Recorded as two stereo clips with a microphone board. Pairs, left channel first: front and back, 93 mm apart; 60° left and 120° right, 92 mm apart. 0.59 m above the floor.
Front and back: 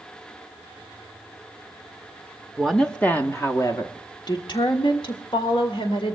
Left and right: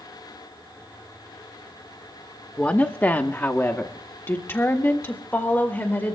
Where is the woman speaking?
95° left, 0.8 m; by 6.2 s 5° right, 2 m.